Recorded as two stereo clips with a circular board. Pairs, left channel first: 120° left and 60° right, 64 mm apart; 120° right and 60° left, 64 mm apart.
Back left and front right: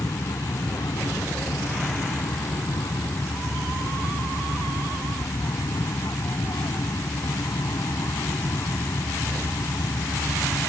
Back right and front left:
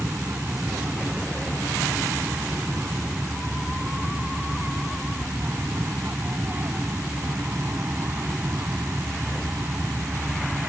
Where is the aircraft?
120° left; by 10.7 s 110° left.